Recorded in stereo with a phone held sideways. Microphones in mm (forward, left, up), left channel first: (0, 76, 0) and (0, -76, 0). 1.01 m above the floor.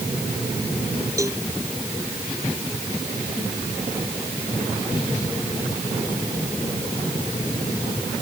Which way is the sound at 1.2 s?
20° right (ahead or behind).